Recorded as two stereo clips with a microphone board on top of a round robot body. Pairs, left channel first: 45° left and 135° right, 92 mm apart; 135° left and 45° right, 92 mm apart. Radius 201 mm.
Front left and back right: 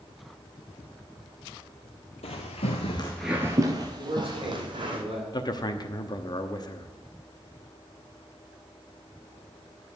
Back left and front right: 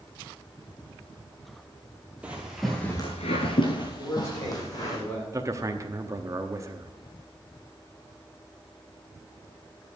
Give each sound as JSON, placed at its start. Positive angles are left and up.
{"t": 2.2, "sound": "footsteps", "azimuth_deg": 30, "distance_m": 1.3}
{"t": 4.0, "sound": "a man speaking", "azimuth_deg": -165, "distance_m": 7.5}
{"t": 5.3, "sound": "a man speaking", "azimuth_deg": 5, "distance_m": 1.2}